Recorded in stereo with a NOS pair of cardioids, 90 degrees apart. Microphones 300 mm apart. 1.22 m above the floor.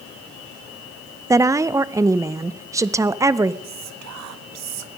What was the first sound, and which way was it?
A woman speaking, 10° right.